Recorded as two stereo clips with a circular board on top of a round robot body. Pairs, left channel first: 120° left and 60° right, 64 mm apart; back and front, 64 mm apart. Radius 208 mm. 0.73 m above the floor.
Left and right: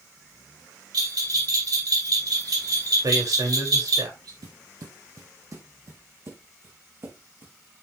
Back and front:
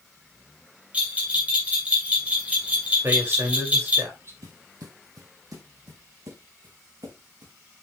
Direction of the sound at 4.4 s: 35° right.